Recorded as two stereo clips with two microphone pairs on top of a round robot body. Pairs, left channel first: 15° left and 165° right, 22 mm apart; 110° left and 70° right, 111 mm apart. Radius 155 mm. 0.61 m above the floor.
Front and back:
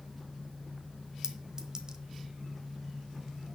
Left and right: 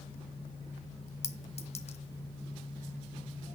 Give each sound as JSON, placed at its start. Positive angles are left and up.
{"t": 1.2, "sound": "a clink", "azimuth_deg": 130, "distance_m": 1.2}